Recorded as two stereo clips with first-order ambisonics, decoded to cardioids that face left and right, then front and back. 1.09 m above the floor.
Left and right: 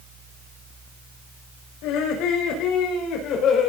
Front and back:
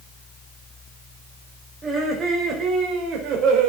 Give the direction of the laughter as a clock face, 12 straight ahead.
8 o'clock.